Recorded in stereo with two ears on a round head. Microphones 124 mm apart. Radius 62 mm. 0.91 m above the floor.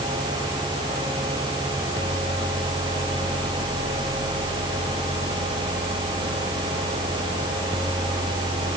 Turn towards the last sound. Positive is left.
No sound to turn to.